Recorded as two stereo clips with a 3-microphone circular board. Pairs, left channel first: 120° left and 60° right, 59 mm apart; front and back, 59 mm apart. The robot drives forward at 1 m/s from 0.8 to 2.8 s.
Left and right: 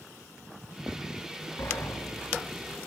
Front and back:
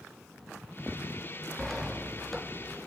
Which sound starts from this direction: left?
A sliding door, at 1.6 s.